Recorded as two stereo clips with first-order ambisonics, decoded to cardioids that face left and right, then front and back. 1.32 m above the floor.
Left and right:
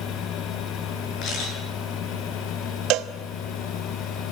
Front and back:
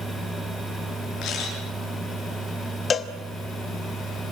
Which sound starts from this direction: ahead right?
A cowbell, at 2.9 s.